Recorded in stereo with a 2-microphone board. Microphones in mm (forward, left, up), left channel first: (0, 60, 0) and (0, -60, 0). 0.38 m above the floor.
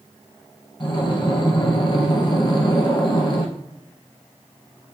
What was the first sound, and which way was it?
Breathing, 40° left (ahead or behind).